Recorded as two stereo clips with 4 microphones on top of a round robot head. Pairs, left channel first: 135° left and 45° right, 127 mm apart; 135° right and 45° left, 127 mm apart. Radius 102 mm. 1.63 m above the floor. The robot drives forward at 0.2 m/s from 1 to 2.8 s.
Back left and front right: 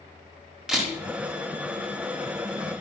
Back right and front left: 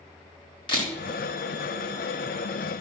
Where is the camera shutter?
130° right, 1.4 m.